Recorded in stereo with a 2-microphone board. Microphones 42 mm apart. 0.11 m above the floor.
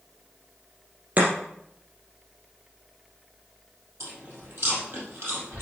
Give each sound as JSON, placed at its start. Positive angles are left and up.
{"t": 1.2, "sound": "chopping", "side_deg": -40, "distance_m": 3.0}
{"t": 4.0, "sound": "chewing", "side_deg": -65, "distance_m": 4.0}